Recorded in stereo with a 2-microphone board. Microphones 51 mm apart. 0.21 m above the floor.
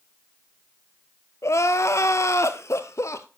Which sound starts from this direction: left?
Crying, at 1.4 s.